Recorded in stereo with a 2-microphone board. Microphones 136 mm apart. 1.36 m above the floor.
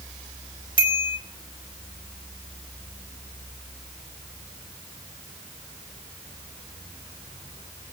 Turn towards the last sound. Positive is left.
turn(degrees=40)  # may be behind; listen again after turning